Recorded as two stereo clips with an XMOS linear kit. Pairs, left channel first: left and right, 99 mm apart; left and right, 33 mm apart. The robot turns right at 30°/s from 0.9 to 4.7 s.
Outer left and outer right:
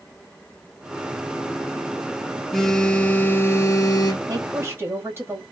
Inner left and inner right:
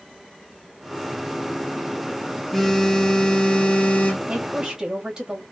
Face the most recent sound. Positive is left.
turn(degrees=-25)  # may be behind; listen again after turning